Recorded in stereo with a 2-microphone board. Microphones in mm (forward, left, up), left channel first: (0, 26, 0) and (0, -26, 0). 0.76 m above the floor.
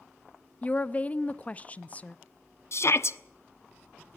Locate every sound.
0.6 s a woman speaking: 25° left (ahead or behind), 0.6 m
2.7 s a shout: 55° left (ahead or behind), 1.0 m